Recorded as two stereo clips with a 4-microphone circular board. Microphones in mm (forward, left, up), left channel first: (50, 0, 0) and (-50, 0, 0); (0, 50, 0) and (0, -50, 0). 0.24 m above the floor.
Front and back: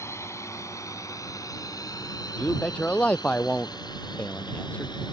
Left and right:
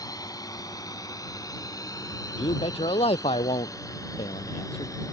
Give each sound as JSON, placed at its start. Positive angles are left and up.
{"t": 0.0, "sound": "a drone", "azimuth_deg": 55}
{"t": 2.4, "sound": "a man speaking", "azimuth_deg": 75}